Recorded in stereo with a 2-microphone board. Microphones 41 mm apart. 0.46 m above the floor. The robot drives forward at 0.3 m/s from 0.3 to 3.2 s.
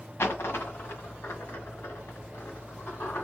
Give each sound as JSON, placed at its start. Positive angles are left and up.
{"t": 0.2, "sound": "a dropped coin", "side_deg": 75, "distance_m": 1.8}